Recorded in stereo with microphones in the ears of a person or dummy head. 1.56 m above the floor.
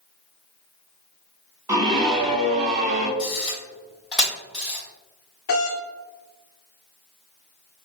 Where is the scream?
20° right (ahead or behind), 1.1 m; by 3.1 s 45° right (ahead or behind), 1.6 m.